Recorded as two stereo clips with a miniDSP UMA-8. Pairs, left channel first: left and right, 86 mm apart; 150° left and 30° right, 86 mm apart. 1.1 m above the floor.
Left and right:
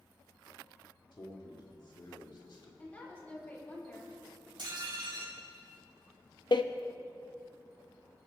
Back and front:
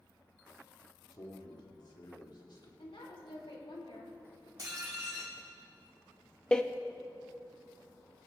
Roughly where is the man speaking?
Behind left.